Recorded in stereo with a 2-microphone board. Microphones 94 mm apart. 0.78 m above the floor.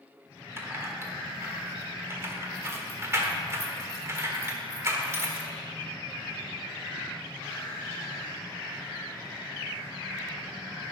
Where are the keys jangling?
30° right (ahead or behind), 1.4 m.